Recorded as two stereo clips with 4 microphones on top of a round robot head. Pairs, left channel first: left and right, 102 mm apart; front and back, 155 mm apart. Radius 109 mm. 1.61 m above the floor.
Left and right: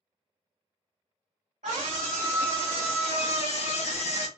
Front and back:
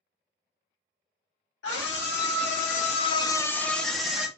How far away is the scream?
About 0.9 m.